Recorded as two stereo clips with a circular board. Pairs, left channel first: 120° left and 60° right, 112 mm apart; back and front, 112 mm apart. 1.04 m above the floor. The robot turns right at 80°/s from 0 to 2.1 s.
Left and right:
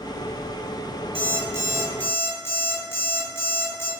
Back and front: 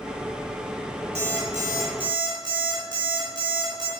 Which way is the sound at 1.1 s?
25° right.